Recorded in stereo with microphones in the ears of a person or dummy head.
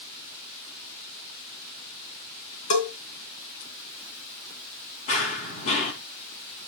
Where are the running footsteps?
35° left (ahead or behind), 2.5 m.